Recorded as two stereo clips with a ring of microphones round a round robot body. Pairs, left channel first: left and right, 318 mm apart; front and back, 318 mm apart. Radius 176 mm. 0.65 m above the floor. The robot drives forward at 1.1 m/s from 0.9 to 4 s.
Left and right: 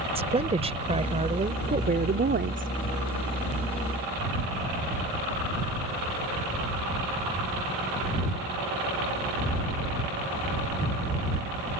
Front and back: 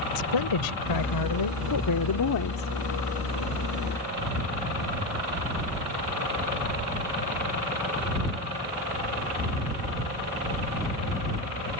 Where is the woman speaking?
20° right; by 2.7 s 45° right.